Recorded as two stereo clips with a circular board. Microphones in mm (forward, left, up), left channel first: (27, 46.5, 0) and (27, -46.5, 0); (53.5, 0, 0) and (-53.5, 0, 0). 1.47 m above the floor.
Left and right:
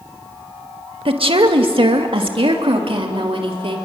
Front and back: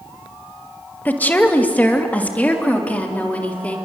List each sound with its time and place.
1.1 s a woman speaking: 75° right, 1.9 m